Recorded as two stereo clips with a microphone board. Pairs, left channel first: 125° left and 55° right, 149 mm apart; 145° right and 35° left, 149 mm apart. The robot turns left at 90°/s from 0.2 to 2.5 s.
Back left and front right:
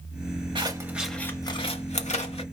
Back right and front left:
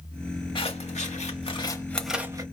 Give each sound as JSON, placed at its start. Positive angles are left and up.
{"t": 0.6, "sound": "scissors", "azimuth_deg": -100, "distance_m": 1.0}